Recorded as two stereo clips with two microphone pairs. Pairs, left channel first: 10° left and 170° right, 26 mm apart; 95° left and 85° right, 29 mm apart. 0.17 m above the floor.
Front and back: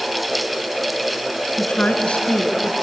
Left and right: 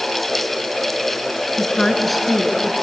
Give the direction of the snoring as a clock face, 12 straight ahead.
I don't hear snoring.